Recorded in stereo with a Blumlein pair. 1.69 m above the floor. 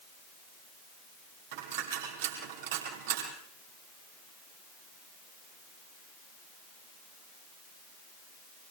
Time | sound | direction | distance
1.5 | a dropped coin | 55° right | 5.5 m